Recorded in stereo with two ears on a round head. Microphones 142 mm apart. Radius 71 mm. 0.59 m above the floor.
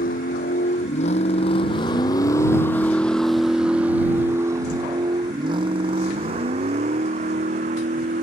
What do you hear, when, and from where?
0.0 s a vehicle: 55° left (ahead or behind); by 8.2 s 50° right (ahead or behind)